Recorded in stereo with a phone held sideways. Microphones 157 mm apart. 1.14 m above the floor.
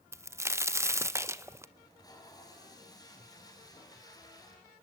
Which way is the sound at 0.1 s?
15° right (ahead or behind).